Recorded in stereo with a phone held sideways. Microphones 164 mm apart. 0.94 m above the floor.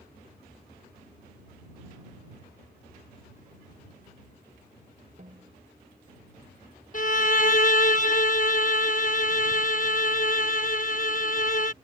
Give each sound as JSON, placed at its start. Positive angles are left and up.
{"t": 5.2, "sound": "a snare drum", "side_deg": -50}
{"t": 6.9, "sound": "a violin", "side_deg": 50}